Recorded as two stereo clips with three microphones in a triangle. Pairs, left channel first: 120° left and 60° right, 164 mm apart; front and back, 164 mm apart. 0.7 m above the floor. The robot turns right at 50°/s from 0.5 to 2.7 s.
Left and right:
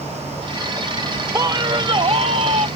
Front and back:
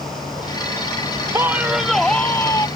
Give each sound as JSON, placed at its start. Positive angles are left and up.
{"t": 1.3, "sound": "a man speaking", "azimuth_deg": -120}